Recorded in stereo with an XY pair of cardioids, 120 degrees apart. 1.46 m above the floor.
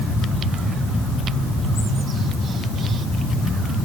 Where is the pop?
No pop in this recording.